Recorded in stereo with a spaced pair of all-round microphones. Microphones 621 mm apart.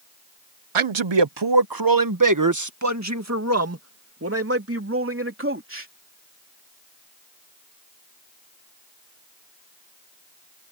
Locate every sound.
0.8 s a man speaking: 55° right (ahead or behind); by 5.9 s 20° right (ahead or behind)